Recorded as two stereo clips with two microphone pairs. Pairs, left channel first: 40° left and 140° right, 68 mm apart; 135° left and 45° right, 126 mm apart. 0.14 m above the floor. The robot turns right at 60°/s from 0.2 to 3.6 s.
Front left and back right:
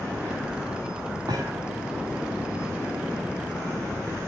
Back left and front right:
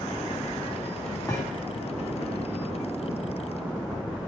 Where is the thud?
160° right, 4 m; by 1.7 s 135° right, 4 m.